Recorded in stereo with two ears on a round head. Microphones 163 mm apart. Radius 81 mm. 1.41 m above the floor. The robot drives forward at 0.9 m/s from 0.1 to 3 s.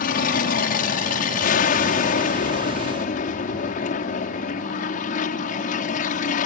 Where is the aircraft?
50° left (ahead or behind); by 6.5 s 45° left (ahead or behind).